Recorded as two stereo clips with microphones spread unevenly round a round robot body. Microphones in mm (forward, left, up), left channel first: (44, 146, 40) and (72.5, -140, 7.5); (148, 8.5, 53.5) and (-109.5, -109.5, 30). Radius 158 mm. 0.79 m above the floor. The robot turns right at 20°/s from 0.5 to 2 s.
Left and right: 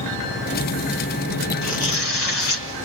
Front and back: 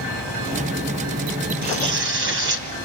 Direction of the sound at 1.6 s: 140° left.